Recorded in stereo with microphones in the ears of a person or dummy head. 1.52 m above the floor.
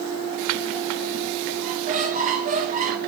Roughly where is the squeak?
Right.